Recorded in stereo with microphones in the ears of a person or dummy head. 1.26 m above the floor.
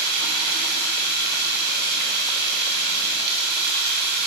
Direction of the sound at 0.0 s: 60° right (ahead or behind).